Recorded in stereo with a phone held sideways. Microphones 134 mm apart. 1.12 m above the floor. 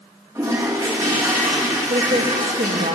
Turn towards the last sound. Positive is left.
turn(degrees=-80)